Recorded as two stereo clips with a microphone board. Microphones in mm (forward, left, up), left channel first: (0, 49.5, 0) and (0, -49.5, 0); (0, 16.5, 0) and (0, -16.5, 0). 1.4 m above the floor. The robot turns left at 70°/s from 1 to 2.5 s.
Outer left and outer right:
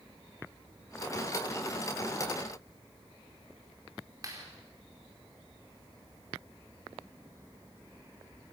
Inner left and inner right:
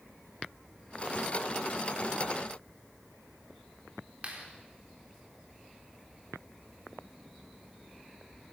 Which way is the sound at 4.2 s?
35° right (ahead or behind).